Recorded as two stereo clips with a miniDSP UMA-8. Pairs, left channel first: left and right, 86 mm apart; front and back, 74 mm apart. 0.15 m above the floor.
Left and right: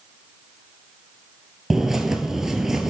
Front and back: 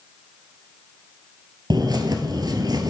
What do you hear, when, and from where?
1.7 s a bird: 175° right, 0.9 m